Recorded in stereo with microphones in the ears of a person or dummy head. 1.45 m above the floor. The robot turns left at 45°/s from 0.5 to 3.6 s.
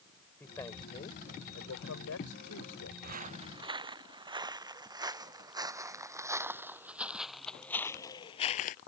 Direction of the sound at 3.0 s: 55° right (ahead or behind).